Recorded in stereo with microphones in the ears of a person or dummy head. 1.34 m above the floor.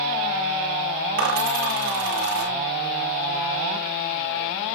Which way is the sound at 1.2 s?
65° right (ahead or behind).